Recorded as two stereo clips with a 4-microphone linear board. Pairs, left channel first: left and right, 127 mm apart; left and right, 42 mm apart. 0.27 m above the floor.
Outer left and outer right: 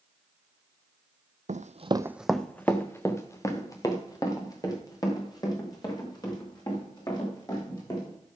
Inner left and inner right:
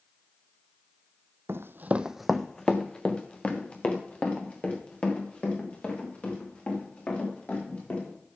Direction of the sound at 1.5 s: 75° right (ahead or behind).